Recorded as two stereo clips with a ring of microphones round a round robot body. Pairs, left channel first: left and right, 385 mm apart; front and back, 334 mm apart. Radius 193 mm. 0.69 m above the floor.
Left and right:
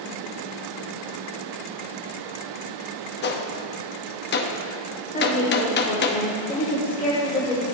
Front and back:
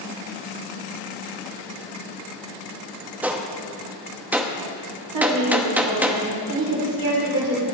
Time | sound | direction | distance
3.2 | a gunshot | 100° left | 0.8 m
5.1 | a woman speaking | 160° left | 2 m